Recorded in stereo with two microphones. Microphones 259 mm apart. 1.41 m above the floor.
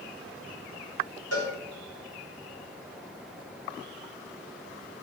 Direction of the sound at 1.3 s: 65° left (ahead or behind).